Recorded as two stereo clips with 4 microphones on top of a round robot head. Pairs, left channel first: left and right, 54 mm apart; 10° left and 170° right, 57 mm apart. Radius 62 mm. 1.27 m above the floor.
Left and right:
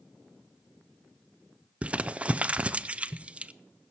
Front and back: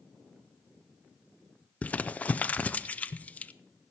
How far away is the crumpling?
About 0.5 m.